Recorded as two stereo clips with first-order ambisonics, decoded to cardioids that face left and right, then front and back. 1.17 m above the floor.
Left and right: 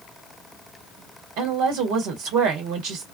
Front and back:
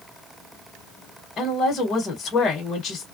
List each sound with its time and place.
1.4 s a woman speaking: 70° right, 1.0 m